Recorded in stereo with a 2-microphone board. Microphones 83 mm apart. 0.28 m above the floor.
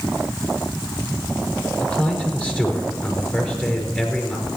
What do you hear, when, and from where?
1.8 s a man speaking: 15° left (ahead or behind), 5 m